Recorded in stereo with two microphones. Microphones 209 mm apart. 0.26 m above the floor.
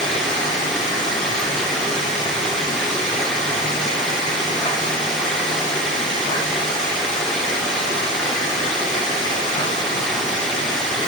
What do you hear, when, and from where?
0.0 s running water: 5° left (ahead or behind), 2.5 m